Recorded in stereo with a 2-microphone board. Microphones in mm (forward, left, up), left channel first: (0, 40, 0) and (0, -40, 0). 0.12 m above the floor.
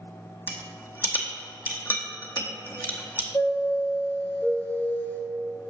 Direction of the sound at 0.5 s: 20° left (ahead or behind).